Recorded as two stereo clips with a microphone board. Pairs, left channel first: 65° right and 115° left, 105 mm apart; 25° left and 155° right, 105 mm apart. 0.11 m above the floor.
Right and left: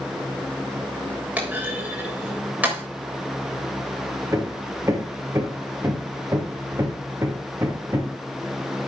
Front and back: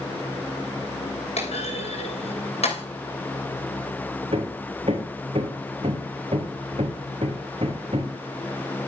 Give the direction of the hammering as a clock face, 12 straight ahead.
6 o'clock.